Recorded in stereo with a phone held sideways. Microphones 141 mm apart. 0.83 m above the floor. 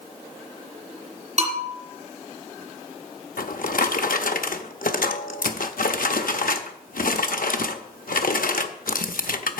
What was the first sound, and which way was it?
A bell, 55° right (ahead or behind).